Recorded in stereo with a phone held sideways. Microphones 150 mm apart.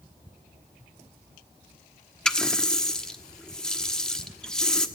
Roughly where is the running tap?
Centre.